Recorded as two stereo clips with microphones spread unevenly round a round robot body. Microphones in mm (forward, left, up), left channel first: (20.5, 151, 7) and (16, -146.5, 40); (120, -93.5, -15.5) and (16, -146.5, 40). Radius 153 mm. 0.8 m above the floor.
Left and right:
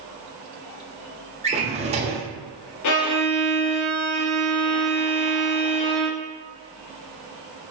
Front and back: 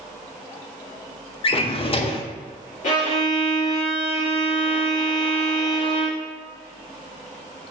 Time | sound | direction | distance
1.4 | a drawer | 20° right | 0.5 m
2.8 | a violin | 55° left | 0.6 m